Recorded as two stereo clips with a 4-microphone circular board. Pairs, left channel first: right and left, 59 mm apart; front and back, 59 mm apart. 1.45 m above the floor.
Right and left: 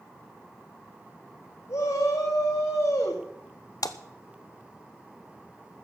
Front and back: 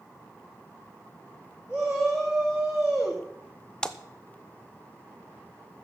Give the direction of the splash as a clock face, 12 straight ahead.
3 o'clock.